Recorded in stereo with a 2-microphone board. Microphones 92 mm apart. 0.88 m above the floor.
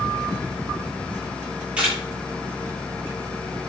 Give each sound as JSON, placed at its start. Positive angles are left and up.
{"t": 1.8, "sound": "a camera shutter", "side_deg": -15, "distance_m": 8.5}